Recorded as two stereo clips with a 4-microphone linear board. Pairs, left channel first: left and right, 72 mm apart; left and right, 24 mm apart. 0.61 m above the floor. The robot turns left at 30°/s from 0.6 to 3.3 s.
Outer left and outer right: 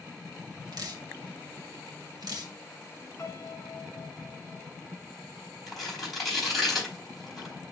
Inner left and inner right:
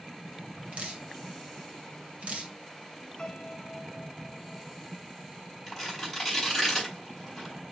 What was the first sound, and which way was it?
Dripping, 60° right (ahead or behind).